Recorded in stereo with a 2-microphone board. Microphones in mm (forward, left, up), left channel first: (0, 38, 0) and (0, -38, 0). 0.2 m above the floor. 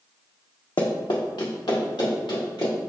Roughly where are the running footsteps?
Left.